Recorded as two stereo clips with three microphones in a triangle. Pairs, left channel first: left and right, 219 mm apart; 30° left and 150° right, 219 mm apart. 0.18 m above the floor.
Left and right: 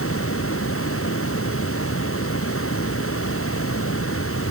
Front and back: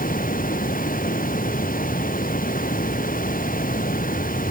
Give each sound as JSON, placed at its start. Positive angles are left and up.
{"t": 0.0, "sound": "running water", "azimuth_deg": 80}